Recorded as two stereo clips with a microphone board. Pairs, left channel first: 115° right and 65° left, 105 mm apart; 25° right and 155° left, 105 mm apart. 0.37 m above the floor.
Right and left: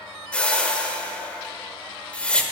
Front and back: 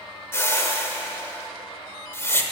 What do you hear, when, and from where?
0.3 s a whoosh: 50° right, 0.9 m